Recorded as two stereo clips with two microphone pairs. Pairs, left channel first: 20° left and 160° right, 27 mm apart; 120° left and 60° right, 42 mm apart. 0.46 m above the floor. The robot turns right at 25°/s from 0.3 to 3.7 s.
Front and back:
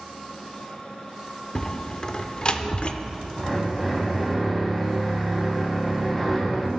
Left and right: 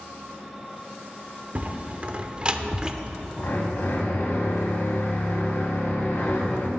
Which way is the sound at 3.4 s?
95° left.